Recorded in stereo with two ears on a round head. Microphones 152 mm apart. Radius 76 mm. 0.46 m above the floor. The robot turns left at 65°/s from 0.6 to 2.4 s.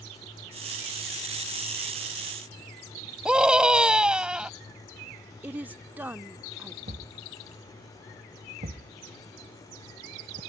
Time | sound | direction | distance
3.2 | a scream | 5° right (ahead or behind) | ?
5.4 | a woman speaking | 10° right (ahead or behind) | ?
6.9 | a thud | 40° right (ahead or behind) | ?